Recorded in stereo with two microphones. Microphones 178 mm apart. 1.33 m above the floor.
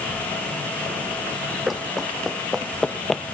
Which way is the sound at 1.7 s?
Centre (ahead or behind).